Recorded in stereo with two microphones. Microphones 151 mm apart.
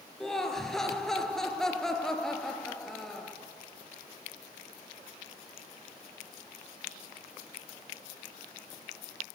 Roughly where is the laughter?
Centre.